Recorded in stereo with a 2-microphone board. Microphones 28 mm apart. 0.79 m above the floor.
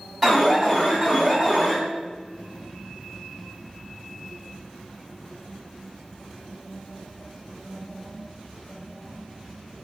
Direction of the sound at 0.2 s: 5° right (ahead or behind).